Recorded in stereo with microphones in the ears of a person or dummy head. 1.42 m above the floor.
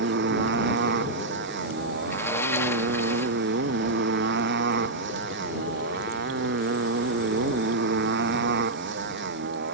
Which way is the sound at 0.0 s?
65° right (ahead or behind).